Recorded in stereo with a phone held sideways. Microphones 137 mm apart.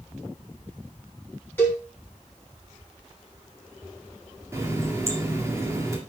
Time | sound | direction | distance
1.6 | a cowbell | 15° left (ahead or behind) | 4 m
4.5 | a running tap | 20° right (ahead or behind) | 1.8 m